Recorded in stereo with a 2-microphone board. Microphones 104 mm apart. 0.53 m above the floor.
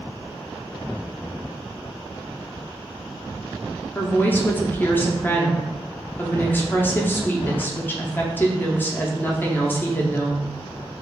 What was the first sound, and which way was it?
A woman speaking, 20° left (ahead or behind).